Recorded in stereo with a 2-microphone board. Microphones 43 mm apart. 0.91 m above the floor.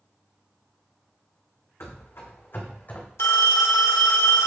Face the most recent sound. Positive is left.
turn(degrees=80)